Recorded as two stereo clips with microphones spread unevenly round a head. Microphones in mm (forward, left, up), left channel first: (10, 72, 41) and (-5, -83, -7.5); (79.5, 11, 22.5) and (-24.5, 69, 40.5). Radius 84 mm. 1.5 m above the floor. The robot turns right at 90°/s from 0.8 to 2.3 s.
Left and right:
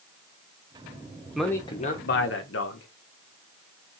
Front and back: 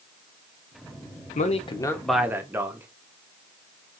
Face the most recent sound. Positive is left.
turn(degrees=75)